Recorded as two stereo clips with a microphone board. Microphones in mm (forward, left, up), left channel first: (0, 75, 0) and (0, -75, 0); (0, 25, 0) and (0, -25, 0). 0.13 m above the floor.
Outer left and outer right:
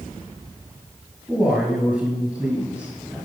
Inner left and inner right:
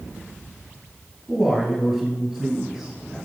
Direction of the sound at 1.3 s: Centre (ahead or behind).